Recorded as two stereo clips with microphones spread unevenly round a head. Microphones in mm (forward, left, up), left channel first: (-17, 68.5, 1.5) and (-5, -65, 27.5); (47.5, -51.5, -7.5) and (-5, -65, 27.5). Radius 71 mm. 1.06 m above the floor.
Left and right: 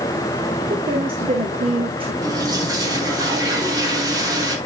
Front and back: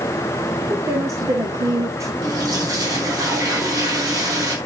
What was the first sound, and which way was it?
A woman speaking, 135° right.